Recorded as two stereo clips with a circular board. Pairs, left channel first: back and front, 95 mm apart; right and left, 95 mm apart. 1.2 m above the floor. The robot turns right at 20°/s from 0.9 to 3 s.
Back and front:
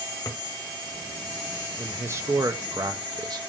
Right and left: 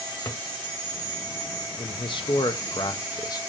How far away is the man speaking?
About 1.3 m.